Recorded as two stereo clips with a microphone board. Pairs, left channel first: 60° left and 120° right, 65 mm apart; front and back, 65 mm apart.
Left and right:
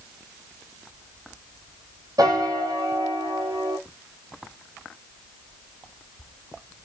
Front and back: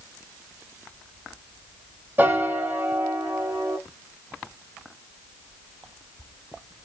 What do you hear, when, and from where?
2.2 s a piano: 120° right, 0.8 m